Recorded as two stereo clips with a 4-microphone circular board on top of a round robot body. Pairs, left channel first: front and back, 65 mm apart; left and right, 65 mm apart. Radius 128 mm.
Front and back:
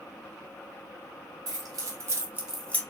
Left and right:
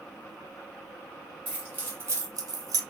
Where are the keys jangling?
155° right, 1.7 m; by 2.8 s 60° right, 0.7 m.